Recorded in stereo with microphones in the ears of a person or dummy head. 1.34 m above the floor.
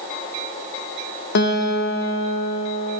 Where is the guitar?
50° left (ahead or behind), 0.5 m.